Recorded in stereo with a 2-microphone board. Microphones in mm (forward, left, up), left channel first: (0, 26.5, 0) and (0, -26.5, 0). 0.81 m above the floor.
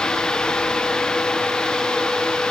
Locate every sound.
Only background noise.